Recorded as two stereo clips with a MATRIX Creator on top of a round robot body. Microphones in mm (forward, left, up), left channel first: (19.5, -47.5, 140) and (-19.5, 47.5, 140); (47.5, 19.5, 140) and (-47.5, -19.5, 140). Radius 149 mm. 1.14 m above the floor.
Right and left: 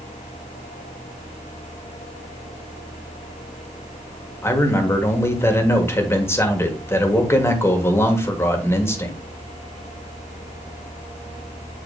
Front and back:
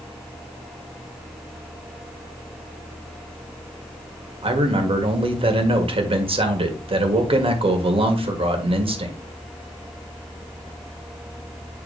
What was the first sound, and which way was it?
A man speaking, 135° right.